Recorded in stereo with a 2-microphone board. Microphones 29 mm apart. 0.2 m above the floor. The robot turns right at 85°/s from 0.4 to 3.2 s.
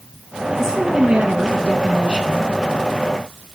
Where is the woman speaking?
165° right, 1.9 m; by 2.4 s 10° right, 1.9 m.